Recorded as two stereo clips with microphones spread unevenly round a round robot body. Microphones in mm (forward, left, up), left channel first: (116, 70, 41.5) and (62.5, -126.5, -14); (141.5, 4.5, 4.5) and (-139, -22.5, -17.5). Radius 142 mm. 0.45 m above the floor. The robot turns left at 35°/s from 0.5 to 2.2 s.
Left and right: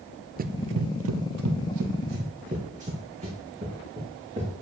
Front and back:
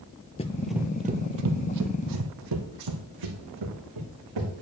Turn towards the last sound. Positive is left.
turn(degrees=180)